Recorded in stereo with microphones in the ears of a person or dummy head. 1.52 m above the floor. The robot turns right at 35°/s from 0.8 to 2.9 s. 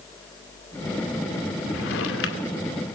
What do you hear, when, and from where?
1.7 s a drawer: 75° left, 2 m; by 2.5 s 105° left, 2 m